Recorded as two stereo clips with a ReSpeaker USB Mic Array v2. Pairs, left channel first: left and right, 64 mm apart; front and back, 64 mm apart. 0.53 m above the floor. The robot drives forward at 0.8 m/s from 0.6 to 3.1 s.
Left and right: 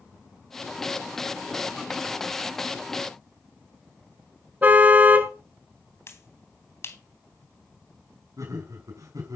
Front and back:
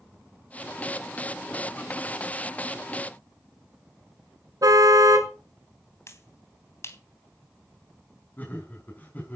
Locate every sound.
4.6 s a car horn: 155° right, 3 m
6.1 s a finger snap: 45° left, 3.5 m
8.4 s laughter: 60° right, 6 m